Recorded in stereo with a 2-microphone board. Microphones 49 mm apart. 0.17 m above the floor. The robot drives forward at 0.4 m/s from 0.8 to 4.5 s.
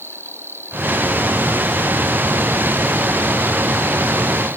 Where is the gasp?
No gasp in this recording.